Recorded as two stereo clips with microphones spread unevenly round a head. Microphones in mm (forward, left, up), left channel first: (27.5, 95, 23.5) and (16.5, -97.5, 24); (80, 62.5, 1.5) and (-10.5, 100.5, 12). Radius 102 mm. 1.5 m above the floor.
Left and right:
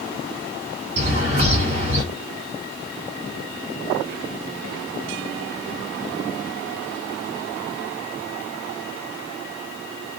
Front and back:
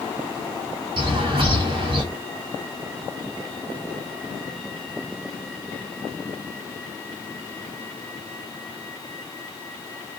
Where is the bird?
150° right, 2.5 m.